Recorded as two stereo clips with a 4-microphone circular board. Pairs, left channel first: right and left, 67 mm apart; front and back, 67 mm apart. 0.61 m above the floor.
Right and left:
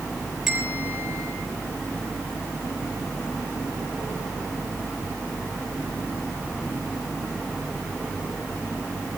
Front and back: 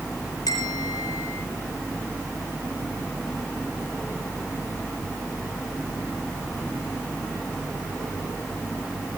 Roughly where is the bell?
Ahead.